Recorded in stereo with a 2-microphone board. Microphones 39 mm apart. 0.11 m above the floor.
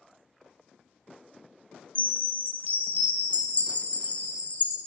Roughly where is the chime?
Left.